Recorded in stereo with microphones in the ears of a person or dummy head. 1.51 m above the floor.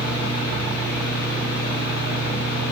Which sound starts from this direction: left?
A fan, at 0.0 s.